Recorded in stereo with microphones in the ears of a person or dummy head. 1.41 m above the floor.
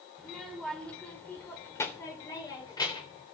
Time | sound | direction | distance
0.2 | a child speaking | centre (ahead or behind) | 3 m